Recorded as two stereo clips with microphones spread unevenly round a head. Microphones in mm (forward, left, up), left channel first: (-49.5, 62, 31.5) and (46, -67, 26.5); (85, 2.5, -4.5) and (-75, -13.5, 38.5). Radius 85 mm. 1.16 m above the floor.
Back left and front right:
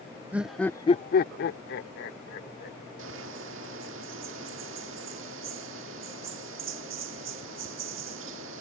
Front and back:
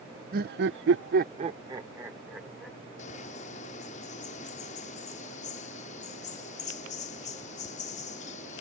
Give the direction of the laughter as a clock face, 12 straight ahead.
4 o'clock.